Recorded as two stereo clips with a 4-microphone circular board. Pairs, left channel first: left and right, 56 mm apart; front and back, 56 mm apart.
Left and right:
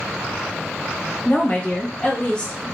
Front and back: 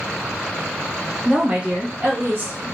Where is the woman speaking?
110° left, 1.1 m; by 2.6 s 155° left, 1.4 m.